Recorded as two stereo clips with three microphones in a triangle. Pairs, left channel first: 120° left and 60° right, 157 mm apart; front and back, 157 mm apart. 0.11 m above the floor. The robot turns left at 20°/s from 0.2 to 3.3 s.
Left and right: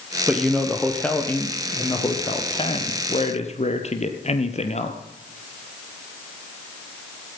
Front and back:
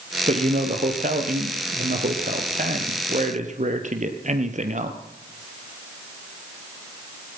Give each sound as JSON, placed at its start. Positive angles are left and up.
{"t": 0.3, "sound": "a man speaking", "azimuth_deg": -145, "distance_m": 2.0}